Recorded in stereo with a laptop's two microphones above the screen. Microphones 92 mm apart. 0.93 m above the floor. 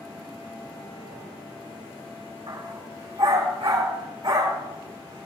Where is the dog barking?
75° right (ahead or behind), 4 m; by 5.3 s 85° right, 5.5 m.